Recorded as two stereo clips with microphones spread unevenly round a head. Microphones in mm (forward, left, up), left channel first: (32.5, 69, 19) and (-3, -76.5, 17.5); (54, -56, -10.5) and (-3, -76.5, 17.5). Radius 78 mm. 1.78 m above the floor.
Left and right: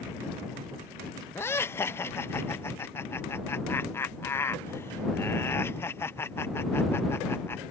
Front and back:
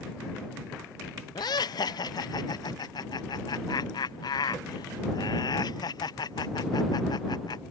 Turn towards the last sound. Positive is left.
turn(degrees=0)